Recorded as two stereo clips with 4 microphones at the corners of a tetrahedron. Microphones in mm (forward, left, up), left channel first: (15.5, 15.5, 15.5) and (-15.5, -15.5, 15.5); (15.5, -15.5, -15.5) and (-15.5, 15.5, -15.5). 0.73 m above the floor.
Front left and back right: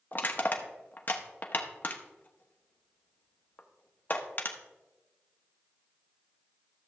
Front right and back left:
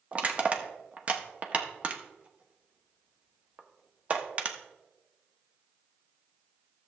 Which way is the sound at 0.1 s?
80° left.